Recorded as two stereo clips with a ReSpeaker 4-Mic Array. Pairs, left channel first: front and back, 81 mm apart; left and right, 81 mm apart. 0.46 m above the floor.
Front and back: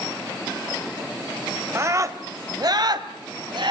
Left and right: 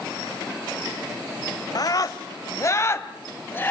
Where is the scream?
125° left, 1.7 m; by 3.7 s 155° left, 2.5 m.